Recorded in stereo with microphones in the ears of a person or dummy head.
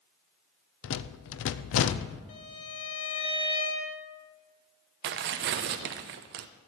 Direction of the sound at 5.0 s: 50° right (ahead or behind).